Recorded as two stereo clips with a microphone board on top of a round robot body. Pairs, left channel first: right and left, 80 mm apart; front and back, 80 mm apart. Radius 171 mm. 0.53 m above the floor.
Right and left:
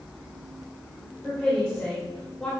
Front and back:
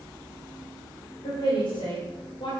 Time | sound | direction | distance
1.2 | a woman speaking | 10° right | 3 m